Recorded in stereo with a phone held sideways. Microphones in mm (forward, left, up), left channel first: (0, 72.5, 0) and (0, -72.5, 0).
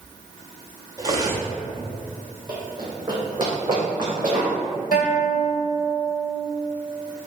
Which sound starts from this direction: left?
A guitar, at 4.9 s.